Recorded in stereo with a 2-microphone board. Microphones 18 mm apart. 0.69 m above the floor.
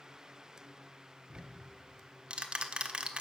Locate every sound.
1.3 s ticking: 55° right (ahead or behind), 1.2 m